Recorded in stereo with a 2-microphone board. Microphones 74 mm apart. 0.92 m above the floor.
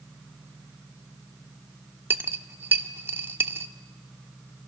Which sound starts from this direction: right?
A dropped coin, at 2.1 s.